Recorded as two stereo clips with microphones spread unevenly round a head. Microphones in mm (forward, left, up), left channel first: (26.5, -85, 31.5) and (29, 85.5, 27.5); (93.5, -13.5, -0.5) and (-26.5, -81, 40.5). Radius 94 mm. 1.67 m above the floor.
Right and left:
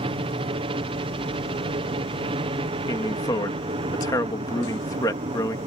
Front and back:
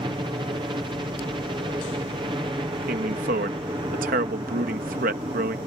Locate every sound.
0.0 s a helicopter: 140° left
2.9 s a man speaking: 165° right